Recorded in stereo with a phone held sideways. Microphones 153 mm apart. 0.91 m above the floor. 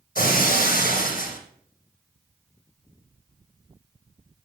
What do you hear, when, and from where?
0.1 s breaking glass: 75° left (ahead or behind), 3 m